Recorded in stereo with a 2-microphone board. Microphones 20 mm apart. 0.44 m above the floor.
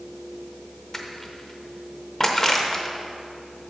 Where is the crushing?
25° left (ahead or behind), 0.8 m.